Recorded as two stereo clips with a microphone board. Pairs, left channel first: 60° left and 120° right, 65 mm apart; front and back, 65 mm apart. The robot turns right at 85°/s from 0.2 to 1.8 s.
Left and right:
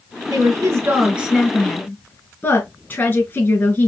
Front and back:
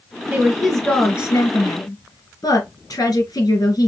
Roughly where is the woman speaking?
Behind right.